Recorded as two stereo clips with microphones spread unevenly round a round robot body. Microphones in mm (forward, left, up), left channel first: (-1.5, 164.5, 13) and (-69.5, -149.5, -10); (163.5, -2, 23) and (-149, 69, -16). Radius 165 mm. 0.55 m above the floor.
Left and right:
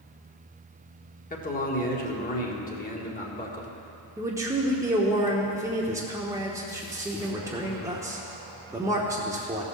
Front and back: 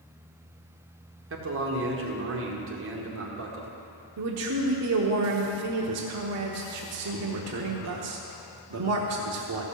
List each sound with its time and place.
1.3 s a man speaking: 140° left, 1.7 m
4.2 s a man speaking: straight behind, 1.0 m